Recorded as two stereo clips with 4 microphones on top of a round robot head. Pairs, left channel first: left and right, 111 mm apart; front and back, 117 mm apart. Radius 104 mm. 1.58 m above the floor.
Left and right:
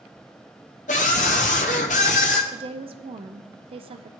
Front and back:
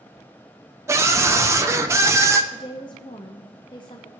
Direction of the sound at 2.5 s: 60° right.